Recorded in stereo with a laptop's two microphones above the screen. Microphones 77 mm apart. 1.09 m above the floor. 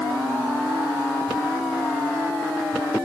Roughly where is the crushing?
No crushing in this recording.